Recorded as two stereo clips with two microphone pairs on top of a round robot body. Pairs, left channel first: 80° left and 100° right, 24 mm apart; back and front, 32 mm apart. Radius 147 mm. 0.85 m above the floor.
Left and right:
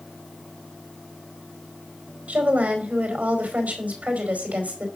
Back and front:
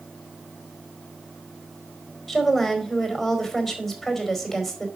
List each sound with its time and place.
2.3 s a woman speaking: 95° right, 4.5 m